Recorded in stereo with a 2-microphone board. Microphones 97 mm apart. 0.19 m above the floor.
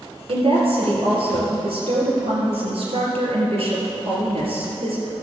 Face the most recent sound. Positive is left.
turn(degrees=-70)  # may be behind; listen again after turning